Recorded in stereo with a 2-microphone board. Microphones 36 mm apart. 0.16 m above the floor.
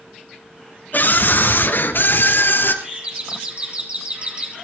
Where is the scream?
50° left (ahead or behind), 2 m; by 2.7 s 65° left (ahead or behind), 3.5 m.